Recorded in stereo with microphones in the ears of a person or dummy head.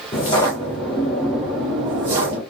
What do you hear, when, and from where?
0.1 s footsteps: 30° left (ahead or behind), 1.5 m; by 2.4 s 35° right (ahead or behind), 1.4 m